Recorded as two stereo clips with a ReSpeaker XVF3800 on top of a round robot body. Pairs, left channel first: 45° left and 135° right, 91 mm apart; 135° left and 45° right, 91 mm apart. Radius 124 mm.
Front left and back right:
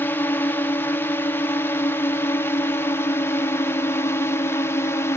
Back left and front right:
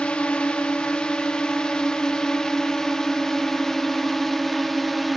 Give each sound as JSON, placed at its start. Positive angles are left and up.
{"t": 0.0, "sound": "a drone", "azimuth_deg": 75}